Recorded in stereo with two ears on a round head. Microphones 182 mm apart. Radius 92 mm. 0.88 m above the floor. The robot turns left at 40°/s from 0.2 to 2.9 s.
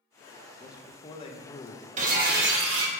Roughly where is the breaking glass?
Ahead right.